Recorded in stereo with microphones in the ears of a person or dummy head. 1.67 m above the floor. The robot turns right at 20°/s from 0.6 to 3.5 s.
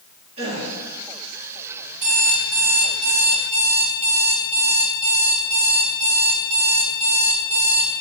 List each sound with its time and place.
0.4 s a gasp: 35° right (ahead or behind), 2.5 m; by 0.7 s 30° right (ahead or behind), 2.5 m
2.0 s an alarm clock: 65° right (ahead or behind), 2.5 m; by 7.9 s 45° right (ahead or behind), 2.5 m